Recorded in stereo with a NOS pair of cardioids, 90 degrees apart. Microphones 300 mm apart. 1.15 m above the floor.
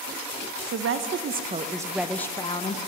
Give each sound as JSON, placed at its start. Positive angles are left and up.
{"t": 0.7, "sound": "a woman speaking", "azimuth_deg": -55, "distance_m": 1.0}